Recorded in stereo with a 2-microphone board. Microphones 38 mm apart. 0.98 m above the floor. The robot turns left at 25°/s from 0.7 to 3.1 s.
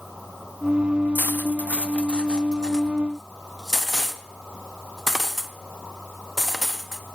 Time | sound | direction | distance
1.1 | cutlery clinking | 55° left (ahead or behind) | 0.8 m